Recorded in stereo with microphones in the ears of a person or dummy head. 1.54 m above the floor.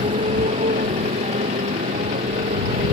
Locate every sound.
0.0 s a motorcycle: 25° right (ahead or behind); by 2.9 s 30° right (ahead or behind)